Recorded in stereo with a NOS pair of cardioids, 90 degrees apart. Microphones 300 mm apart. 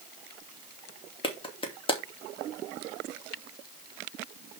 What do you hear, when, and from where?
1.2 s a clap: 20° left, 2.5 m